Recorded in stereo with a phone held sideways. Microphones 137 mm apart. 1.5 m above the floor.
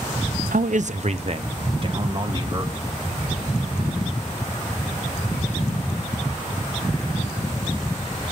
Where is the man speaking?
75° right (ahead or behind), 0.6 m; by 2.7 s 35° right (ahead or behind), 1.9 m.